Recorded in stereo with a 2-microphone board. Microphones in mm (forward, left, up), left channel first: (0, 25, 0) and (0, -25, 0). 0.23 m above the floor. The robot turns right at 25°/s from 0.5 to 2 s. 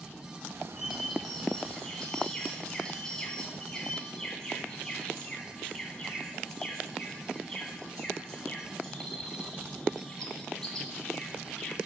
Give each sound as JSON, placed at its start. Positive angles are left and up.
{"t": 0.8, "sound": "a bird", "azimuth_deg": -15, "distance_m": 2.5}